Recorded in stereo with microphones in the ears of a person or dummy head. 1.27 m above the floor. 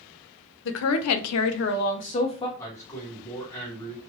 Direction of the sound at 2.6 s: 15° left (ahead or behind).